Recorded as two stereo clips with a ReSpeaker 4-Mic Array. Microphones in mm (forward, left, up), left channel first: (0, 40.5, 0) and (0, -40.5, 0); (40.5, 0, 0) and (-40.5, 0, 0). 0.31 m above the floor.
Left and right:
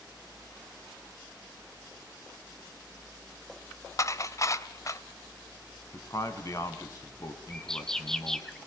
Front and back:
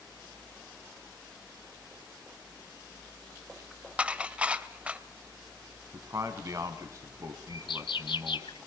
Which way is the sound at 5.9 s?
135° left.